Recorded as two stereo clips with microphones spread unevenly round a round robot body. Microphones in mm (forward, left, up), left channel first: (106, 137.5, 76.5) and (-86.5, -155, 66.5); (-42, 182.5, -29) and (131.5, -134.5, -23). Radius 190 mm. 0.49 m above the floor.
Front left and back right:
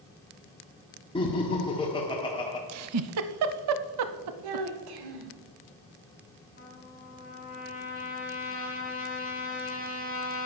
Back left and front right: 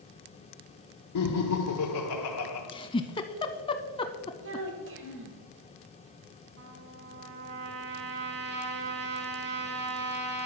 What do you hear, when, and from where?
1.1 s laughter: 130° left, 1.4 m
2.7 s a giggle: 165° right, 0.5 m
4.4 s a child speaking: 120° right, 1.6 m
6.6 s a trumpet: 10° right, 3 m